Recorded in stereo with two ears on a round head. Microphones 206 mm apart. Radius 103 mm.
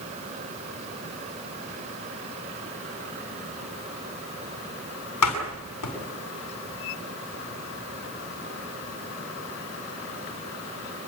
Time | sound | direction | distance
5.2 | a door slam | 90° left | 8 m